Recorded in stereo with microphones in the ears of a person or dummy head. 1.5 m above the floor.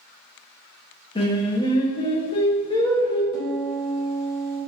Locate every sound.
1.1 s singing: 25° left (ahead or behind), 0.8 m
3.3 s a piano: 55° left (ahead or behind), 2 m